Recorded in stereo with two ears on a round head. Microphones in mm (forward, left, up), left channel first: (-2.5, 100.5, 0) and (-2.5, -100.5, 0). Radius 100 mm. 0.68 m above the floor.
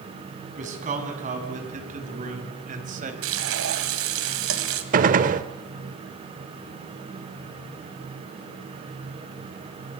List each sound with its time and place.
0.6 s a man speaking: 35° right (ahead or behind), 5 m
3.2 s frying: 65° right (ahead or behind), 2.5 m
4.9 s a gunshot: 40° right (ahead or behind), 0.9 m